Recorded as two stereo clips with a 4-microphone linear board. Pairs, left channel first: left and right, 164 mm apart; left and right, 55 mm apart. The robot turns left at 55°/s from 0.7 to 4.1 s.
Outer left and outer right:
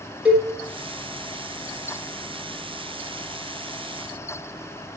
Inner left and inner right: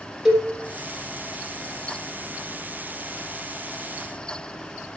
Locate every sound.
0.2 s a cowbell: 10° right (ahead or behind), 3.5 m